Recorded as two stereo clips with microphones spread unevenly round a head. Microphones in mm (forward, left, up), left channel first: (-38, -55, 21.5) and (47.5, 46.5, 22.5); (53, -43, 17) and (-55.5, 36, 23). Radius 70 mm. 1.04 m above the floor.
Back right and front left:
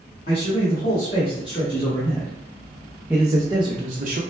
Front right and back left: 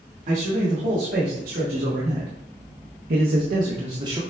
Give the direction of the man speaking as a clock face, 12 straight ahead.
6 o'clock.